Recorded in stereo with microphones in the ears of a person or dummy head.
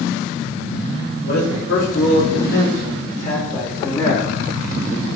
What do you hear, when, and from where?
1.2 s a man speaking: 80° left, 3 m; by 4.3 s 15° left (ahead or behind), 1.6 m